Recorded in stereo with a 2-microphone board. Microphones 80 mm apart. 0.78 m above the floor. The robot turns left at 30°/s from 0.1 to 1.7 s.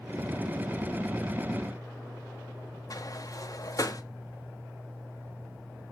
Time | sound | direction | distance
2.9 | a sliding door | 45° left (ahead or behind) | 1.4 m